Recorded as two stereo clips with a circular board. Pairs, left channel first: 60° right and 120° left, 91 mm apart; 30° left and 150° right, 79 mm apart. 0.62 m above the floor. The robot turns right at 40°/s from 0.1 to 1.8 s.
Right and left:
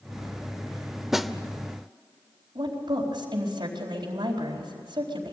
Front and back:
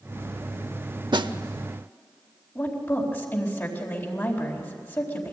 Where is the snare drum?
155° right, 0.7 m; by 1.3 s 145° right, 0.7 m.